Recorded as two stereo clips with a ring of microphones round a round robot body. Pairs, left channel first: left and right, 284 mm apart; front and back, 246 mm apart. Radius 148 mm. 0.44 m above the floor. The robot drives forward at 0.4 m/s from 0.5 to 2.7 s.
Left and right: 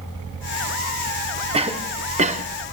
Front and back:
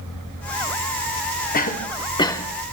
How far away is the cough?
About 0.9 m.